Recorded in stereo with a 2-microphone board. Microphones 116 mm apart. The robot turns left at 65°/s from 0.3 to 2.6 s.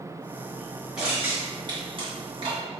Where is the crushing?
5° right (ahead or behind), 2 m; by 2.6 s 45° right (ahead or behind), 2 m.